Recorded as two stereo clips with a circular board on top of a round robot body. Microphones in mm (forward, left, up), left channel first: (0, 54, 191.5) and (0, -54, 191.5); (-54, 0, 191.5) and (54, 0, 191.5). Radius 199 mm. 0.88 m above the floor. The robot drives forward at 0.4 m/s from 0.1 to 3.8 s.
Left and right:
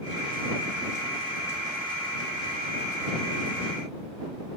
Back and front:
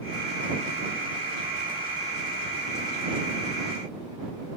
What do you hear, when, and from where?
Only background noise.